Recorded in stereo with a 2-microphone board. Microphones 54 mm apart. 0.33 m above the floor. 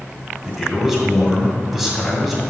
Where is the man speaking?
5° right (ahead or behind), 2.5 m.